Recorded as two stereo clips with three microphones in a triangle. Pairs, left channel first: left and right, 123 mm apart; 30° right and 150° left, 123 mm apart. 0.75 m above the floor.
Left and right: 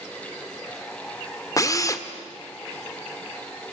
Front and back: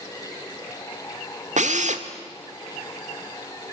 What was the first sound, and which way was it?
A drill, 150° left.